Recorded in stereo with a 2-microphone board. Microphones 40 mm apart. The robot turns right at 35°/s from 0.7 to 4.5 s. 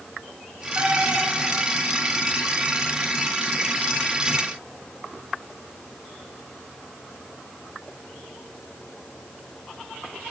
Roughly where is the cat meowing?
Right.